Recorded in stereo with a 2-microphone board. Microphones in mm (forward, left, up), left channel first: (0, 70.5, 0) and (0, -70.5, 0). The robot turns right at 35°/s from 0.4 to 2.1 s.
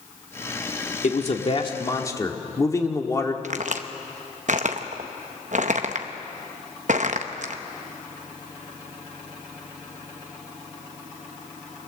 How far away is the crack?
About 1.1 m.